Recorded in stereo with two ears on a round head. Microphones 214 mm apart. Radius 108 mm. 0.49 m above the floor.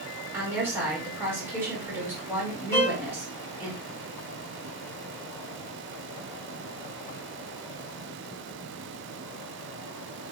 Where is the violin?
10° left (ahead or behind), 2 m.